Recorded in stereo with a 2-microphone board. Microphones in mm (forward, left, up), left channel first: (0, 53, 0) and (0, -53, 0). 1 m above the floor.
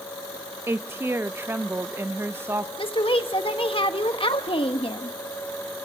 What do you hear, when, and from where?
0.7 s a woman speaking: 25° right (ahead or behind), 0.6 m
2.8 s a woman speaking: 55° left (ahead or behind), 1.2 m